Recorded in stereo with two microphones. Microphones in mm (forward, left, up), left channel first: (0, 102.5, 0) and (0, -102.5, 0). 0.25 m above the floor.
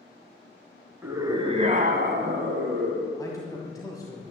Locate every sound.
1.0 s a scream: 10° right (ahead or behind), 2 m; by 3.1 s 65° right (ahead or behind), 3 m
3.2 s a man speaking: 15° left (ahead or behind), 1.8 m